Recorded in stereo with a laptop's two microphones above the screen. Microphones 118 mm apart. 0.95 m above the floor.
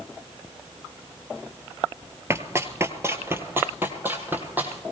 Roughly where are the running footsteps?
Right.